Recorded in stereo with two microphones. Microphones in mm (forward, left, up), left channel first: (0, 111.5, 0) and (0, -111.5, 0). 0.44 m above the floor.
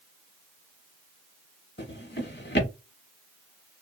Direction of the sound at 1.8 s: 55° left (ahead or behind).